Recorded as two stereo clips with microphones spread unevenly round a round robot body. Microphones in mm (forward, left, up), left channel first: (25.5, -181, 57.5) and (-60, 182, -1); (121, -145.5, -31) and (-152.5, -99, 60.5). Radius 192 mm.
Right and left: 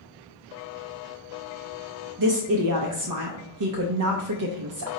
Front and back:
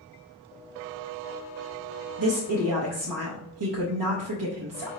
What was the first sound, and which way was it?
A woman speaking, 135° left.